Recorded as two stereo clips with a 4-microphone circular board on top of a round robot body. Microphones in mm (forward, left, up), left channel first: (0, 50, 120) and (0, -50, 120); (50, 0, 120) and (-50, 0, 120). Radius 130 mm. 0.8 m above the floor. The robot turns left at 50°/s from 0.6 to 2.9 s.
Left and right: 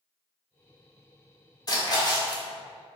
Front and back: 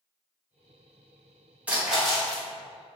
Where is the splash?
110° left, 1.3 m; by 2.4 s 70° left, 1.3 m.